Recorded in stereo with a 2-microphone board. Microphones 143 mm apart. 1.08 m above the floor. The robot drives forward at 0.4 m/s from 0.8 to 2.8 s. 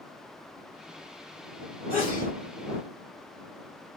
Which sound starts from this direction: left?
A sneeze, at 1.9 s.